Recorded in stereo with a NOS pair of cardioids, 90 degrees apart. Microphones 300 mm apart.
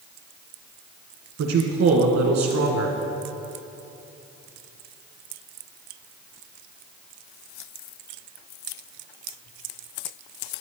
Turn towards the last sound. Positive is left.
turn(degrees=-60)